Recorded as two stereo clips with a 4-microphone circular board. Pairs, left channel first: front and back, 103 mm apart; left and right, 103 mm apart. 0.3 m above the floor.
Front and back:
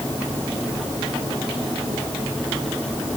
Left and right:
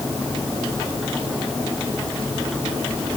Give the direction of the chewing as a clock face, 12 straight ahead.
No chewing in this recording.